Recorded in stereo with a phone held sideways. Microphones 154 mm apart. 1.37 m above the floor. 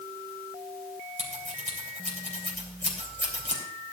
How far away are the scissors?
About 3 m.